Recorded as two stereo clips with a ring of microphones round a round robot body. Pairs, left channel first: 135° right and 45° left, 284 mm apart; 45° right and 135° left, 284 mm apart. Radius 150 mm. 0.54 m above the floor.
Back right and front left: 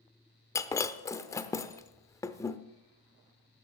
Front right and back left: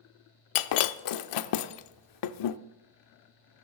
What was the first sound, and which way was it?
Breaking glass, 55° right.